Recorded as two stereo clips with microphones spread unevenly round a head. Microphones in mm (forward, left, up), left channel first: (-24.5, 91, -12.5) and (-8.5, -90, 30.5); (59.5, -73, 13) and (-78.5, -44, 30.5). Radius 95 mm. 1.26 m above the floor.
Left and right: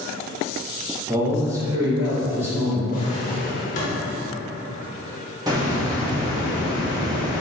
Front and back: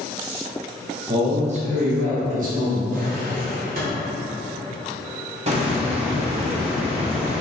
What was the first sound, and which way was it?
A man speaking, 170° right.